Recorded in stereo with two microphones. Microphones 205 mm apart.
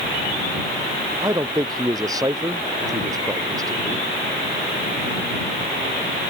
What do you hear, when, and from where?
1.2 s a man speaking: 20° right (ahead or behind)